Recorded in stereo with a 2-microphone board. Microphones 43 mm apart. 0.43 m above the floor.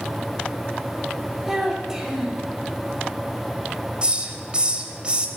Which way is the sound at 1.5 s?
10° right (ahead or behind).